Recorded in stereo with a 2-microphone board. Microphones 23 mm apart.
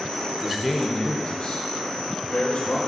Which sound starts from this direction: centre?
A man speaking, at 0.4 s.